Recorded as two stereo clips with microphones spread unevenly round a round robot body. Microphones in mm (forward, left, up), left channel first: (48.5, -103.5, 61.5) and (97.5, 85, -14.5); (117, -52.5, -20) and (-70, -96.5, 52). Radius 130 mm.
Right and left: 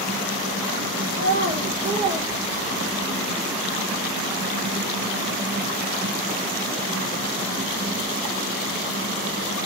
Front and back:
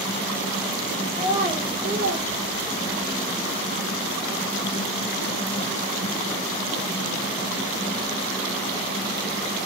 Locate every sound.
1.1 s a child speaking: 110° left, 1.9 m; by 3.1 s straight behind, 2 m